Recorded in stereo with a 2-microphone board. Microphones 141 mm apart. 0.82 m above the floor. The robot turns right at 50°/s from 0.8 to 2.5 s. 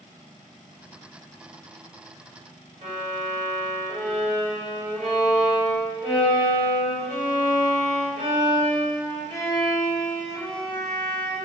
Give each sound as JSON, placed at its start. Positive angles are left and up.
{"t": 2.8, "sound": "a violin", "side_deg": -55, "distance_m": 1.8}